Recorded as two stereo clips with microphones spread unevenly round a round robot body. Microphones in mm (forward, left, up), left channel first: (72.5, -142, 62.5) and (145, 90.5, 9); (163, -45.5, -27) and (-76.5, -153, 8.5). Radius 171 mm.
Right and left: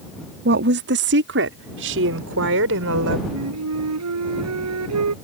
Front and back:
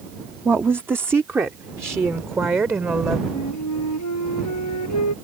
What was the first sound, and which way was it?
A woman speaking, 120° left.